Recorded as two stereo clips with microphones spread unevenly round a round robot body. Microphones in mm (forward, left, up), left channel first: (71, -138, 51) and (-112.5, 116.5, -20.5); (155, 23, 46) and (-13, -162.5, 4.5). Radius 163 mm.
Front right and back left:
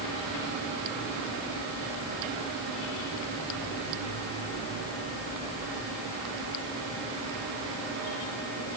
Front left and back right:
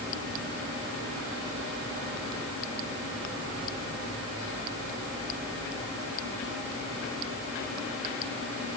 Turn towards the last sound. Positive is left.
No sound to turn to.